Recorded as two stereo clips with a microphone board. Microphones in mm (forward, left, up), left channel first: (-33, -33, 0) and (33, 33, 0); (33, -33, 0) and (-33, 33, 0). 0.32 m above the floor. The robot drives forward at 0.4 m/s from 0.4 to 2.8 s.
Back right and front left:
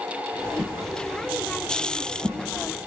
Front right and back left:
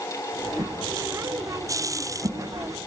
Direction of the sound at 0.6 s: 100° left.